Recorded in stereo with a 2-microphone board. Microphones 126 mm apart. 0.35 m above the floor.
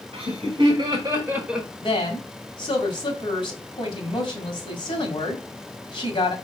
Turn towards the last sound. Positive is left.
turn(degrees=45)  # may be behind; listen again after turning